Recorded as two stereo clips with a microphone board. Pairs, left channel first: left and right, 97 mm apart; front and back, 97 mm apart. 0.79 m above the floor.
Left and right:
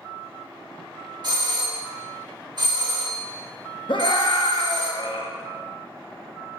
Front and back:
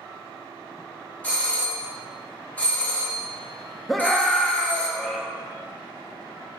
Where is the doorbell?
70° right, 1.4 m.